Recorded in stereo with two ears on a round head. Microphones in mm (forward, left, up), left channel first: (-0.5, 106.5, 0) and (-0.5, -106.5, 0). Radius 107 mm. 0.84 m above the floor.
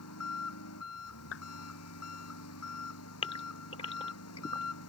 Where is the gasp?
25° left (ahead or behind).